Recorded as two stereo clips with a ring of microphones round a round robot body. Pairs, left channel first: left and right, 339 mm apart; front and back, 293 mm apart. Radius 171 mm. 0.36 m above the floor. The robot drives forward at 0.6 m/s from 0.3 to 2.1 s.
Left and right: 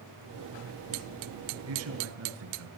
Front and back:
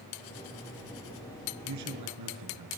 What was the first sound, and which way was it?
A man speaking, 140° right.